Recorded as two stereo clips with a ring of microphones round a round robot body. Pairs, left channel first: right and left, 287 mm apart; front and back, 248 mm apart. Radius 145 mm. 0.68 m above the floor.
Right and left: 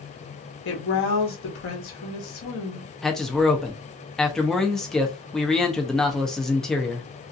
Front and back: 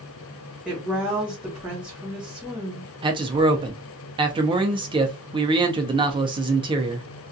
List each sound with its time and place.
0.7 s a woman speaking: 95° right, 1.1 m
3.0 s a man speaking: 175° right, 0.5 m